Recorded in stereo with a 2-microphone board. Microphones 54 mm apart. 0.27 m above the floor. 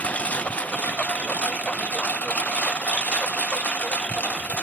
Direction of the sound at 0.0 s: 25° left (ahead or behind).